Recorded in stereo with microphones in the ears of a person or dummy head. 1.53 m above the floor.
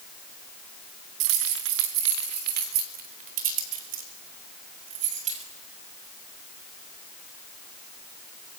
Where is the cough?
No cough in this recording.